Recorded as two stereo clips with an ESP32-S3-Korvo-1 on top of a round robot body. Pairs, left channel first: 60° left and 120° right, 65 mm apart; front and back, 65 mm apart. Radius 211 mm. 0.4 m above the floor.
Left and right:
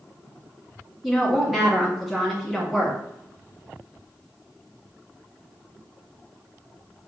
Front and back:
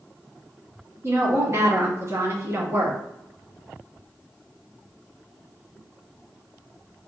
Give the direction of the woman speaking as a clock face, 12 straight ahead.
7 o'clock.